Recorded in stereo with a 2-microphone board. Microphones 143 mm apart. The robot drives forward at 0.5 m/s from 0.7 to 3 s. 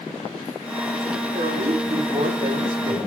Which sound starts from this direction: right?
A woman speaking, at 1.3 s.